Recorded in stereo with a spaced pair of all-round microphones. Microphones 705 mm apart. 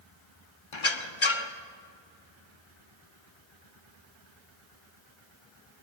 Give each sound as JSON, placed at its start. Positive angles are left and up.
{"t": 0.7, "sound": "a squeak", "side_deg": 45, "distance_m": 1.1}